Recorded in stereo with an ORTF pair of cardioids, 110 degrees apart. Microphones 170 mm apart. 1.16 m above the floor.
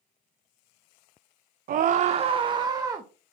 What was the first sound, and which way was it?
A scream, 55° right.